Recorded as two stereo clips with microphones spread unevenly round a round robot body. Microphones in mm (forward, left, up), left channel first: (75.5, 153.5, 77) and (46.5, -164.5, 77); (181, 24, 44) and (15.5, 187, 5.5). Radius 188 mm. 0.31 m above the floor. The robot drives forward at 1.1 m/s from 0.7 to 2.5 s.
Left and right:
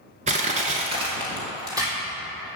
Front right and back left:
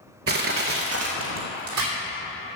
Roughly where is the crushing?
Behind.